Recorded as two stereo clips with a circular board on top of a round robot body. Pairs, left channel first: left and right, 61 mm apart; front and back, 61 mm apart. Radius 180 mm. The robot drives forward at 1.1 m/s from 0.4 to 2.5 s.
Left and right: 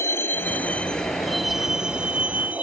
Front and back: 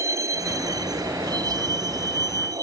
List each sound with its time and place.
0.0 s a vehicle: 140° left; by 2.6 s 155° right